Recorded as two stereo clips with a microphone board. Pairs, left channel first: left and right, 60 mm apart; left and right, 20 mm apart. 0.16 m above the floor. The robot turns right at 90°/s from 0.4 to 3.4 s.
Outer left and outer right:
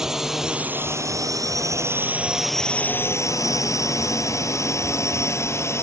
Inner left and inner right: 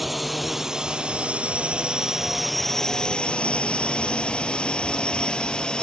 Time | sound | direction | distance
0.0 | a drone | 10° right (ahead or behind) | ?